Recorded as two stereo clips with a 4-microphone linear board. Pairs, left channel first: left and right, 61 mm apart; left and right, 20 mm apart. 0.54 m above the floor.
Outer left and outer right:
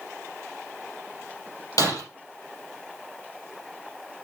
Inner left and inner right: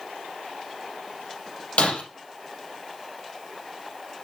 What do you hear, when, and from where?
1.8 s breaking glass: 85° left, 5 m